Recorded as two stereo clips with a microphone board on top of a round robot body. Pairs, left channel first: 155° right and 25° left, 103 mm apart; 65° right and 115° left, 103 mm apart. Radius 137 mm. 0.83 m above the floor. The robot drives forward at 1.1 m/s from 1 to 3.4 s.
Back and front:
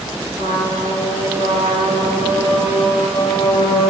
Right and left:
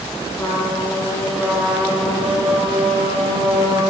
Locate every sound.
0.4 s a trumpet: 10° left, 2 m; by 3.9 s 160° left, 0.9 m